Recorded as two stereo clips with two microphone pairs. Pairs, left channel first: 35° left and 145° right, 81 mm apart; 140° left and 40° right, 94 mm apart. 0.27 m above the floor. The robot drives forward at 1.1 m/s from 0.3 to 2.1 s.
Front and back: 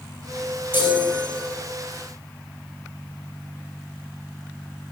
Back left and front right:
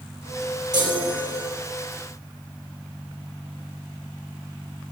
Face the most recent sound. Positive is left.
turn(degrees=-105)